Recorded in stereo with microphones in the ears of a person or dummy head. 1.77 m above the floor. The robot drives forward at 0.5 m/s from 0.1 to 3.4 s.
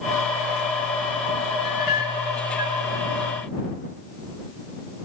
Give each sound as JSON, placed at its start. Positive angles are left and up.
{"t": 1.6, "sound": "a clink", "side_deg": 50, "distance_m": 3.5}